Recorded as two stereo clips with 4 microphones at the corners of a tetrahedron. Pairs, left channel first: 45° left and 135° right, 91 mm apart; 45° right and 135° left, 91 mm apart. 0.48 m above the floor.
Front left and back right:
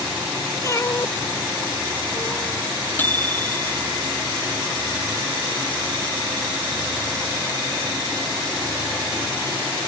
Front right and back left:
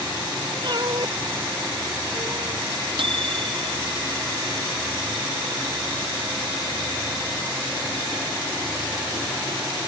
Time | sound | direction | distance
0.6 | a cat meowing | 100° left | ?
3.0 | a microwave | 115° left | ?